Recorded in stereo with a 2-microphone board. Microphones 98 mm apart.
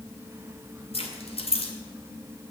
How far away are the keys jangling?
About 2 m.